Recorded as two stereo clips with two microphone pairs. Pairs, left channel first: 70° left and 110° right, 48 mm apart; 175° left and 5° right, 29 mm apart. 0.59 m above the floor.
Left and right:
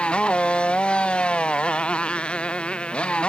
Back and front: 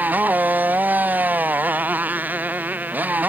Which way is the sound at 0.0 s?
5° left.